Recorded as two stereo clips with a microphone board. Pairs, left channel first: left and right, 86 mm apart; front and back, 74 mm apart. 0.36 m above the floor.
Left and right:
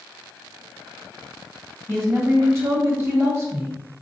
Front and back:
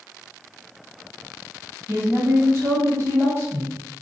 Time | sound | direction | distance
1.9 | a woman speaking | 140° right | 1.5 m